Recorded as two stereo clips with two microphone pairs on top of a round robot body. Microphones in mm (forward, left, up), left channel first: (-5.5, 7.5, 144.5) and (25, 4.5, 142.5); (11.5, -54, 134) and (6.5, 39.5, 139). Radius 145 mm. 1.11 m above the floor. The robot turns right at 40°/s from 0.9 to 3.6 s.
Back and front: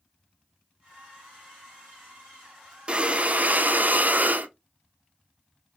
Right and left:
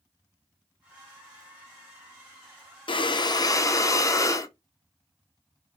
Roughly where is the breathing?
Ahead right.